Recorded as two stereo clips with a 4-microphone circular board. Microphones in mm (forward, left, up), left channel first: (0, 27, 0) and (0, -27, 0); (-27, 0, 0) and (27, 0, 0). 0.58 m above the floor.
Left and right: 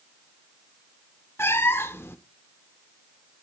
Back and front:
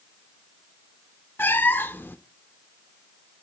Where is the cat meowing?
130° left, 0.6 m.